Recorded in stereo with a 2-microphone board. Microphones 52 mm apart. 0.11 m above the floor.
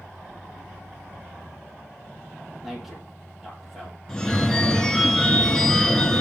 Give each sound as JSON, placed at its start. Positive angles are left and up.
{"t": 2.6, "sound": "a man speaking", "side_deg": 0, "distance_m": 4.0}
{"t": 4.1, "sound": "a phone ringing", "side_deg": 10, "distance_m": 0.8}